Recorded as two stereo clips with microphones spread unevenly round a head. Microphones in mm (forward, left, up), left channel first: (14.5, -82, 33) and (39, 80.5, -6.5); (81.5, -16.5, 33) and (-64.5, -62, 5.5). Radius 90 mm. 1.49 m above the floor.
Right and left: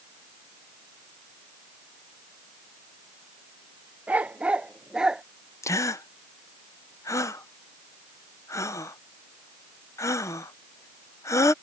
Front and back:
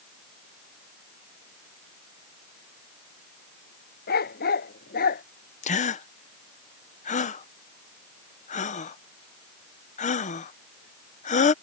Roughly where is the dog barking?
Ahead.